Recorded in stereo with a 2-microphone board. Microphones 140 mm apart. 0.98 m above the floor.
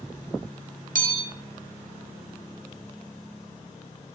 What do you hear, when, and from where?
0.9 s a bell: 65° right (ahead or behind), 1.1 m